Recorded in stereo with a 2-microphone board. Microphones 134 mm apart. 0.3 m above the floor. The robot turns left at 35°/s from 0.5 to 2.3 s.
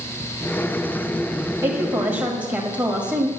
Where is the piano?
No piano in this recording.